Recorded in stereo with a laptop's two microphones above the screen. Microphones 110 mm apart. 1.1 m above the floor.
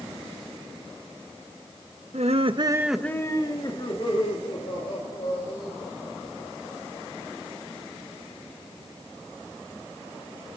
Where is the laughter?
75° right (ahead or behind), 1.1 m; by 7.3 s 65° left (ahead or behind), 6.5 m.